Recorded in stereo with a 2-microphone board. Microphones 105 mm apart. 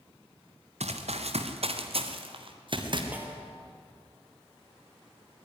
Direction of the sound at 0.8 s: 85° right.